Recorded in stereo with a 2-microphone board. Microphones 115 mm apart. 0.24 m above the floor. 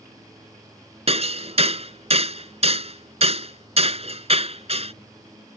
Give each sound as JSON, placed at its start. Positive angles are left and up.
{"t": 1.1, "sound": "hammering", "side_deg": -55}